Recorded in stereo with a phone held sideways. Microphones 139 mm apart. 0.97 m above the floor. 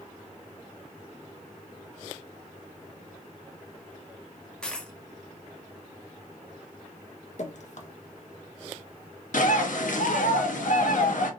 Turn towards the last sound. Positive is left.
turn(degrees=70)  # may be behind; listen again after turning